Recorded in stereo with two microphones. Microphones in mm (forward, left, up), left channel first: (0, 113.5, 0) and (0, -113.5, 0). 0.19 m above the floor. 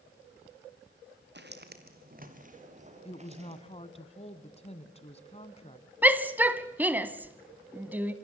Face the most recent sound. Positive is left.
turn(degrees=-10)  # may be behind; listen again after turning